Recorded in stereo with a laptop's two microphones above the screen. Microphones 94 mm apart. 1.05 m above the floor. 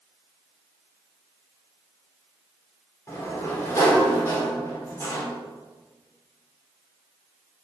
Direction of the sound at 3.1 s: 30° left (ahead or behind).